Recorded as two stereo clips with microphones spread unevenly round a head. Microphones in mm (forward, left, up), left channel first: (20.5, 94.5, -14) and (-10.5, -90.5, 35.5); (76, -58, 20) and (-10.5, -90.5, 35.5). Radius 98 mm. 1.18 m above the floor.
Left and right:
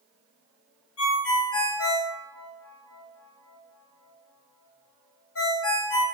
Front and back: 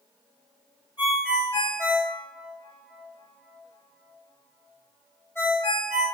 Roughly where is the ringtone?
Left.